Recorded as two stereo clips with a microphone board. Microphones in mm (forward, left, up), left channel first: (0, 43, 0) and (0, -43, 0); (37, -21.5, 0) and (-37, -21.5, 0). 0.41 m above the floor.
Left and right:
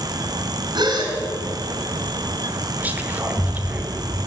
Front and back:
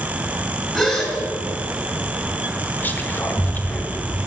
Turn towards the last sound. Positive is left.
turn(degrees=-40)